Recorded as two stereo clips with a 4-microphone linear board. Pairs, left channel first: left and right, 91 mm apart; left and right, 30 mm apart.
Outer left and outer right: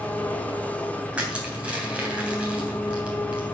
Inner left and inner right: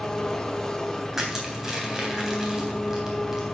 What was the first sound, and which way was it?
An engine running, 20° left (ahead or behind).